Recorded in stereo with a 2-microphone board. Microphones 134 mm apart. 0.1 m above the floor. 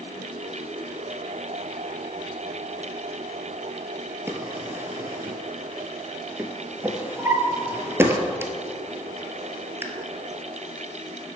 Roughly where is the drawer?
Centre.